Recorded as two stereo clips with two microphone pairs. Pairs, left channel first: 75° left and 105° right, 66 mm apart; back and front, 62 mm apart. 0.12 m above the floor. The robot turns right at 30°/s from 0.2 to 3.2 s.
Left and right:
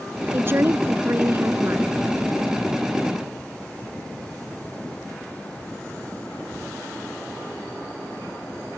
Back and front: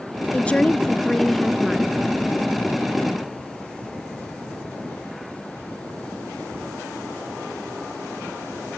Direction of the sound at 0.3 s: 125° right.